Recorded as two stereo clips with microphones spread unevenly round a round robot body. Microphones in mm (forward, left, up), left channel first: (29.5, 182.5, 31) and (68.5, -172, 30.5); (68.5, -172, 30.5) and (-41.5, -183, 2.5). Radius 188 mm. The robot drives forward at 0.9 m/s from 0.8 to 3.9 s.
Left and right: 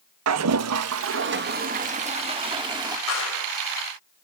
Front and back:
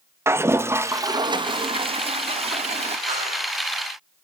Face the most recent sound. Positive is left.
turn(degrees=155)